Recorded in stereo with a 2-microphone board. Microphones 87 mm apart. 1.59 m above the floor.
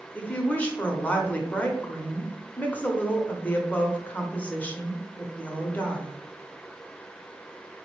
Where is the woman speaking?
15° left (ahead or behind), 0.7 m.